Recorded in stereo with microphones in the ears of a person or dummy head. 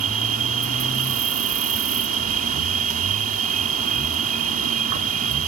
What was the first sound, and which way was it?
An insect, 50° right (ahead or behind).